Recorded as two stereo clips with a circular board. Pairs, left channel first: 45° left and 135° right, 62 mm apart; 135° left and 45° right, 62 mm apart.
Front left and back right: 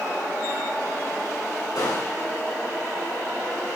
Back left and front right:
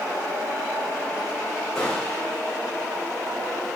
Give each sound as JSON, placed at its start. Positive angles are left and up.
{"t": 1.8, "sound": "a gunshot", "azimuth_deg": 55, "distance_m": 4.5}